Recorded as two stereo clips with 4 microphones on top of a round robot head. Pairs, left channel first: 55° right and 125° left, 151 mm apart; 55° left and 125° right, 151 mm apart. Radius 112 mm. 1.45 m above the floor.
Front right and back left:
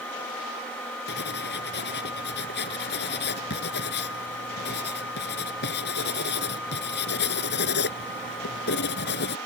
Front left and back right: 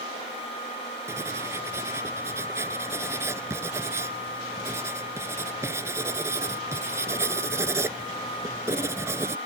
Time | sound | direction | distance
1.1 | writing | 50° right | ?